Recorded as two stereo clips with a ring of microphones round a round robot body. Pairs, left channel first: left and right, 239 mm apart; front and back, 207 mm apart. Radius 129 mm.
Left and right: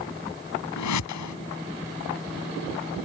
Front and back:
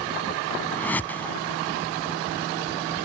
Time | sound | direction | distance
0.8 | a whoosh | 80° left | ?